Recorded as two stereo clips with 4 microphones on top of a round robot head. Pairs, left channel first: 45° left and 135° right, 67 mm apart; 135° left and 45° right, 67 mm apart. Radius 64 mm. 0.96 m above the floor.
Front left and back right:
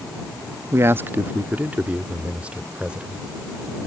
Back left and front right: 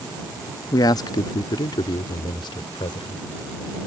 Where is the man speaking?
170° left; by 3.2 s 145° left.